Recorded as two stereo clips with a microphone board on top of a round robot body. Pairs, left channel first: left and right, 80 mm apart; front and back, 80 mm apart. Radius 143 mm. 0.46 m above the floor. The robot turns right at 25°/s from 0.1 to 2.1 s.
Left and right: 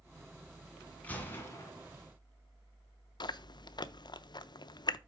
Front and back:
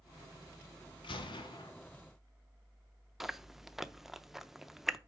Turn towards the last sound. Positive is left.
turn(degrees=95)